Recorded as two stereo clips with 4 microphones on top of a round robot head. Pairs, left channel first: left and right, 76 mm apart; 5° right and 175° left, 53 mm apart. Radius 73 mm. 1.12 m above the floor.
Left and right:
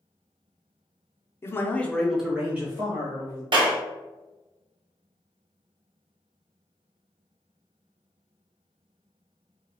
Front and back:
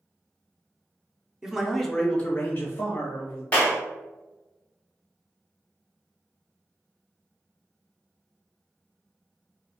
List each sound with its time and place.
1.4 s a man speaking: 105° left, 0.8 m; by 3.4 s 45° right, 1.3 m
3.5 s a clap: 70° right, 0.9 m